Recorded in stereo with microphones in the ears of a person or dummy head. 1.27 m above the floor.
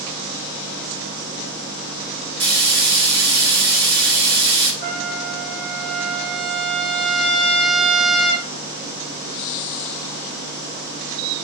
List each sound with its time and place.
2.4 s frying: 80° right, 2.5 m
4.8 s a trumpet: 65° right (ahead or behind), 2.5 m